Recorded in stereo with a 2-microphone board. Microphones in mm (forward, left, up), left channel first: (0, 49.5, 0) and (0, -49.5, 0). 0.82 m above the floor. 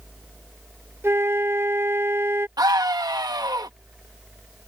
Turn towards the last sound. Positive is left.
turn(degrees=-40)  # may be behind; listen again after turning